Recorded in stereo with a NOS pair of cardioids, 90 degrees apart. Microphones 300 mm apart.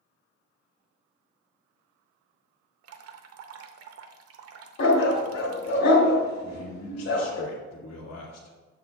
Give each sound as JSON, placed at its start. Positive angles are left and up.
{"t": 2.8, "sound": "dripping", "azimuth_deg": -55, "distance_m": 0.8}
{"t": 4.8, "sound": "a dog barking", "azimuth_deg": 65, "distance_m": 1.9}
{"t": 6.4, "sound": "a man speaking", "azimuth_deg": 55, "distance_m": 1.9}